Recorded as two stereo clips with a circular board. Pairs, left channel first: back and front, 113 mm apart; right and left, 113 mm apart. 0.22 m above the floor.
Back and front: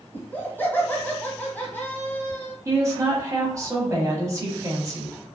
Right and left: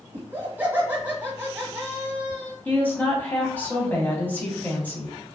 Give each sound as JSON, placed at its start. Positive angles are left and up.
{"t": 0.1, "sound": "laughter", "azimuth_deg": 140, "distance_m": 1.1}
{"t": 2.6, "sound": "a woman speaking", "azimuth_deg": -30, "distance_m": 1.0}